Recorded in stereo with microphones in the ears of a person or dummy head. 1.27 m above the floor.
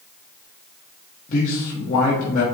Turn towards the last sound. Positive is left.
turn(degrees=45)  # may be behind; listen again after turning